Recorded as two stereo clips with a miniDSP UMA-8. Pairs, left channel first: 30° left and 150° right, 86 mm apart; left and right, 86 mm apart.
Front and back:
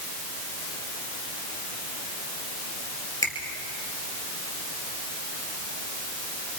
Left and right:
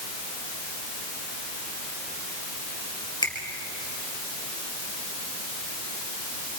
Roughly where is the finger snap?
Left.